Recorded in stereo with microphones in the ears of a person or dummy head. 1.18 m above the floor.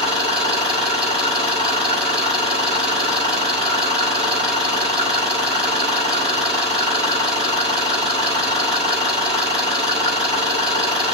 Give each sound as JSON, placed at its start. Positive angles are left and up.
{"t": 0.0, "sound": "an engine running", "side_deg": -35, "distance_m": 6.0}